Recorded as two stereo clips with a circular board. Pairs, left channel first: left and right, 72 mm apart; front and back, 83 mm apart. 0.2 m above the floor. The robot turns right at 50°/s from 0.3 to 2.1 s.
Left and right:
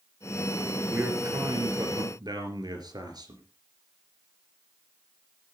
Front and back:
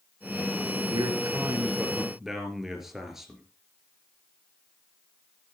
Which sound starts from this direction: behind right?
A man speaking, at 0.9 s.